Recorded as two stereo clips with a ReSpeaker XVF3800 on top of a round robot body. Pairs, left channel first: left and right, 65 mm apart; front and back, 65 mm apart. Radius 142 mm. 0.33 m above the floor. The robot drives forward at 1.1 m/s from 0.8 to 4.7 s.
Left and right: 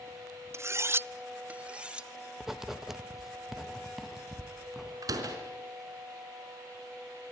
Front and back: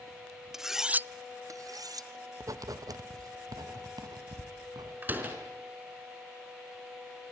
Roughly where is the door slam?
Behind right.